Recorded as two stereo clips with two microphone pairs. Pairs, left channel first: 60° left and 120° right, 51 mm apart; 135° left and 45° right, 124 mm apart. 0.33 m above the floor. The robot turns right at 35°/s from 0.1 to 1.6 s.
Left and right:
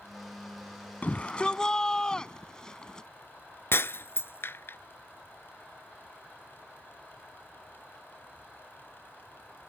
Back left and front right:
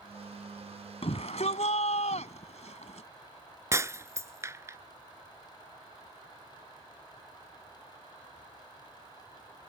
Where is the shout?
110° left; by 3.1 s 130° left.